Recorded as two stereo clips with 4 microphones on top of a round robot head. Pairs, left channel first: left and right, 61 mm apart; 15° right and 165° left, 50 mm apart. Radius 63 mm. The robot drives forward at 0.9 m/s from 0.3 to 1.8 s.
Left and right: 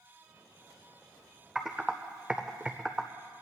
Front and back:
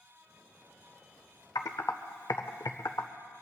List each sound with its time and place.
1.6 s typing on a keyboard: 10° right, 0.7 m; by 3.1 s 15° right, 0.5 m